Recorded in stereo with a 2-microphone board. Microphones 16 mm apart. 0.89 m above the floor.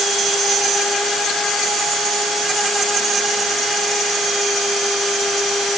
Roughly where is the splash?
I don't hear a splash.